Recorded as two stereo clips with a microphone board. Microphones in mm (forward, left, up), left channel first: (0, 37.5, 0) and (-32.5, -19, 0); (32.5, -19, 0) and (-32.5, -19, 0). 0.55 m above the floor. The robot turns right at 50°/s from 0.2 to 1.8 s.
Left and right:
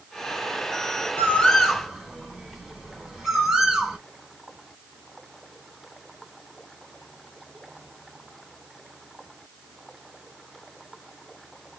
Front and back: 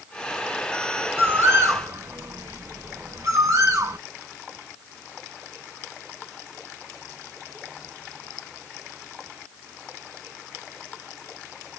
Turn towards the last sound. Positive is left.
turn(degrees=160)